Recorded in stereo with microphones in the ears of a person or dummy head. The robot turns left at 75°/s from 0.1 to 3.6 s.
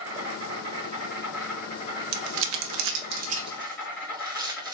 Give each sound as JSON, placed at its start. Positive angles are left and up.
{"t": 0.0, "sound": "an insect", "azimuth_deg": -85, "distance_m": 2.5}
{"t": 2.1, "sound": "crumpling", "side_deg": -55, "distance_m": 0.6}